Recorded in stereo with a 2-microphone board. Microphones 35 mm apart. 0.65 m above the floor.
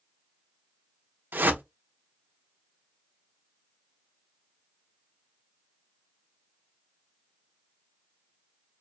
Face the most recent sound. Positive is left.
turn(degrees=-70)  # may be behind; listen again after turning